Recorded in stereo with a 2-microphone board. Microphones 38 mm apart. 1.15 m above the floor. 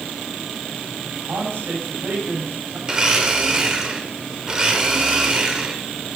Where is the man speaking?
85° right, 4 m.